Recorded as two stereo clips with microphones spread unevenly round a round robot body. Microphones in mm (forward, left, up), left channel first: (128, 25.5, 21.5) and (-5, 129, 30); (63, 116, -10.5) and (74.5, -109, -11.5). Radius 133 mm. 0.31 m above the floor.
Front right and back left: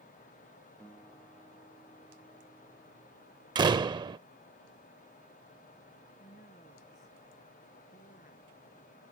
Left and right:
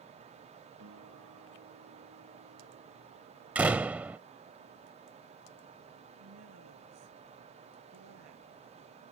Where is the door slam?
165° right.